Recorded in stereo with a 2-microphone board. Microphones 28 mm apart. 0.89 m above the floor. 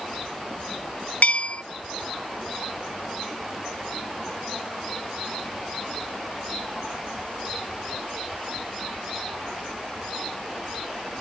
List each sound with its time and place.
1.2 s a bell: 55° left (ahead or behind), 0.6 m